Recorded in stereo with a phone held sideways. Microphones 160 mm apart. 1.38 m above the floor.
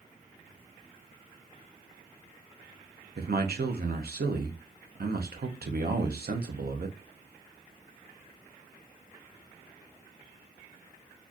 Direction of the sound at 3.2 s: 75° right (ahead or behind).